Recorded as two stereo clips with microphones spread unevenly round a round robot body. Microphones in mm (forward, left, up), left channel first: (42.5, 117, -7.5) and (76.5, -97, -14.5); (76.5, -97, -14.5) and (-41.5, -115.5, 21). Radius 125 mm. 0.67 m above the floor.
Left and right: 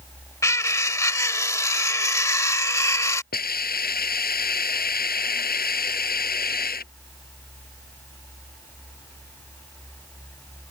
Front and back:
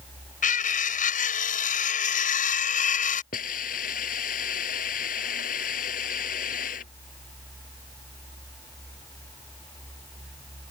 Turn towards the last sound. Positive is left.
turn(degrees=50)